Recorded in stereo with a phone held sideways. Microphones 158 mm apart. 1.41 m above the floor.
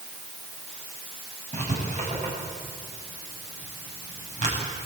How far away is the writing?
About 8.5 m.